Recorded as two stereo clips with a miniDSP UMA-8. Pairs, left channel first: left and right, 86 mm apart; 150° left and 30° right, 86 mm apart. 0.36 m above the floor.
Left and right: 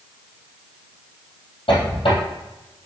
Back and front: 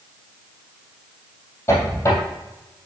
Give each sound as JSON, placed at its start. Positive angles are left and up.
{"t": 1.7, "sound": "a squeak", "azimuth_deg": 90, "distance_m": 3.0}